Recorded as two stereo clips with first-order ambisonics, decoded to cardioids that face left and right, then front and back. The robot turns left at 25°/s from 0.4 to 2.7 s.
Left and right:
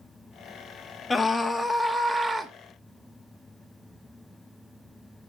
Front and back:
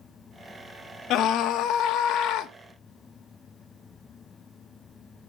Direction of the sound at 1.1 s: 15° left.